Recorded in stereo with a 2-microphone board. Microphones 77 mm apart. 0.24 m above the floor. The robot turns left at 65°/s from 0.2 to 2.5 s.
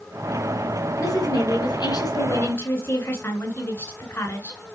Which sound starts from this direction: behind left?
A woman speaking, at 1.0 s.